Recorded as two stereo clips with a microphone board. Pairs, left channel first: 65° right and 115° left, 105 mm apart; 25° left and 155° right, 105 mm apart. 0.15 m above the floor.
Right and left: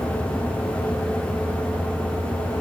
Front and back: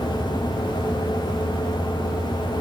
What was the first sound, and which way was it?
Only background noise.